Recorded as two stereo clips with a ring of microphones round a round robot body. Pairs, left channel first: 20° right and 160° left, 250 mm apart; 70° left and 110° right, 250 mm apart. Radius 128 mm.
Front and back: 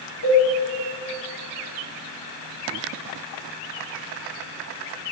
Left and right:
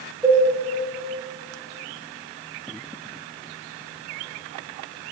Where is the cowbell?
25° right, 2.5 m.